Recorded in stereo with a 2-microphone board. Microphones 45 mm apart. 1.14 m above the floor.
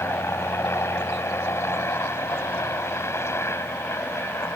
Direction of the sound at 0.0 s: 80° left.